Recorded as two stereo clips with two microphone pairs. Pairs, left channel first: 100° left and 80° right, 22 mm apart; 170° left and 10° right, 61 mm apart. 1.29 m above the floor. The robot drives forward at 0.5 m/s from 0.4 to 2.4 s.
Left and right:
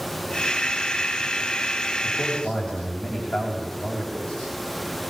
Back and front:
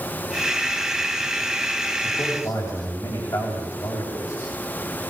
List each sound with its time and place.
2.0 s a man speaking: 125° left, 7.5 m